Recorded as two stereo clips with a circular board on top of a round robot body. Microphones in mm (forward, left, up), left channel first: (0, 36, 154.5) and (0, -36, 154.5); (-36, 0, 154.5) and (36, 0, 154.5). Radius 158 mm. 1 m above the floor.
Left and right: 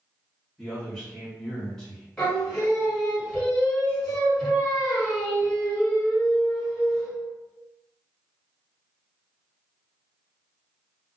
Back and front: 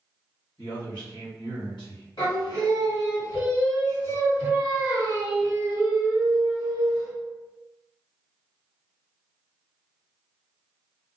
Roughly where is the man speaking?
Behind.